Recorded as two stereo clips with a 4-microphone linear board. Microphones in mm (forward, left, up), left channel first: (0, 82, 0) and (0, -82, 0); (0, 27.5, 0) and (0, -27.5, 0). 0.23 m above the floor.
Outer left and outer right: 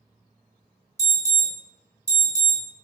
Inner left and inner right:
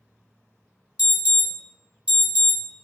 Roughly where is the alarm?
Right.